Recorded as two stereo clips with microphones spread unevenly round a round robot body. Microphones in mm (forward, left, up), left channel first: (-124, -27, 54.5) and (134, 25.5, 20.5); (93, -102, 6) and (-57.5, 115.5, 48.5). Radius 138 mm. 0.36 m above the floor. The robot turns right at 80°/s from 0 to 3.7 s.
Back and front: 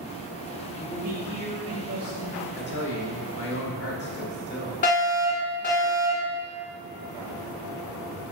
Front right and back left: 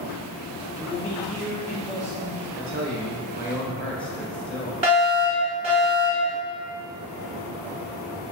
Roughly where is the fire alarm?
Behind.